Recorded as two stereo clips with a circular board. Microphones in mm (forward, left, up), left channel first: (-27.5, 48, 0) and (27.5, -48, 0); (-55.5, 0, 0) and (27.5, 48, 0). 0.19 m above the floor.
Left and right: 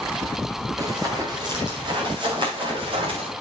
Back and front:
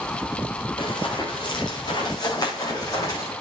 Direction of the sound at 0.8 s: 115° right.